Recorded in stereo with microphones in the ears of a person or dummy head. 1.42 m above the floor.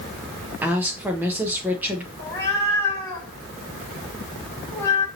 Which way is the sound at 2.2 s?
15° left (ahead or behind).